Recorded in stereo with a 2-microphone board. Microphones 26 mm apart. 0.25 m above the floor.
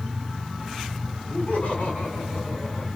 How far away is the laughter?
About 8.5 m.